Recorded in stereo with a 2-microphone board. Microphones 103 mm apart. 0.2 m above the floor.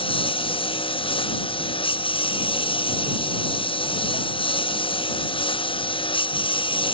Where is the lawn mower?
60° left (ahead or behind); by 6.9 s 55° left (ahead or behind).